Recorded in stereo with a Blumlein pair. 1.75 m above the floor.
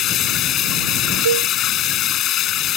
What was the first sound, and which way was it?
Running water, 30° left.